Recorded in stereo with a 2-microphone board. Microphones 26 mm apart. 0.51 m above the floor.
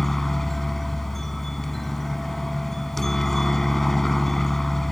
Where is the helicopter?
15° left (ahead or behind).